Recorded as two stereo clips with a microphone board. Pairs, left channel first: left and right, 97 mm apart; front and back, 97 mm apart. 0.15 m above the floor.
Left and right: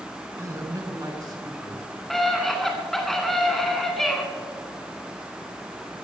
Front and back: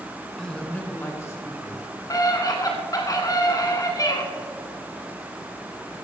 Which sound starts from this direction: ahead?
A scream, at 2.1 s.